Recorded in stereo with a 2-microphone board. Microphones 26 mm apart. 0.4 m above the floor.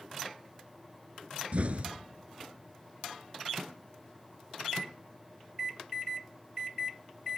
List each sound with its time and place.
1.5 s an explosion: 55° right (ahead or behind), 1.3 m